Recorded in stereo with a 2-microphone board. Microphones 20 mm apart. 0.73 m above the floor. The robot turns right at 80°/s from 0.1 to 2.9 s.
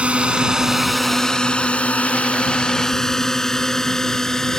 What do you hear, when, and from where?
0.0 s a drone: 70° right (ahead or behind); by 4.6 s 25° left (ahead or behind)